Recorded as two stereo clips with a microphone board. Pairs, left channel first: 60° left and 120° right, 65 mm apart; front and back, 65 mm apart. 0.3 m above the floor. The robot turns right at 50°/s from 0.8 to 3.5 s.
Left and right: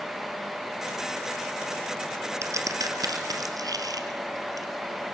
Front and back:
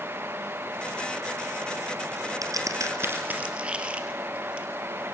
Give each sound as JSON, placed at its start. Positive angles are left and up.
{"t": 2.4, "sound": "a crack", "azimuth_deg": -165, "distance_m": 3.0}